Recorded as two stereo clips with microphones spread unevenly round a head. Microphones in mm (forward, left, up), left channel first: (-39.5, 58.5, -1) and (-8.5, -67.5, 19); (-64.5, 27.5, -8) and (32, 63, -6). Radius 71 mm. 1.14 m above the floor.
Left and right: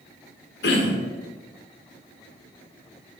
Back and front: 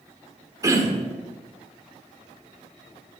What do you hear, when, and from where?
0.6 s throat clearing: 80° left, 1.7 m